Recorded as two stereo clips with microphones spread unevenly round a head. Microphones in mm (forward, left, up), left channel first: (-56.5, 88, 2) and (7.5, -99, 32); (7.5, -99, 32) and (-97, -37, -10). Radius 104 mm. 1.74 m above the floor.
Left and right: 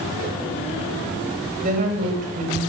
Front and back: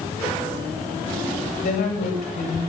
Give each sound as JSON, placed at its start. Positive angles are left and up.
{"t": 1.6, "sound": "a woman speaking", "azimuth_deg": -15, "distance_m": 9.0}